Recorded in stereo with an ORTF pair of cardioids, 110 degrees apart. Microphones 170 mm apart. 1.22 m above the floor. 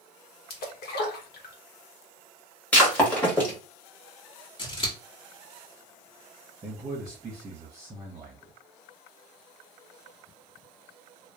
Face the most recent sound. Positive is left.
turn(degrees=-20)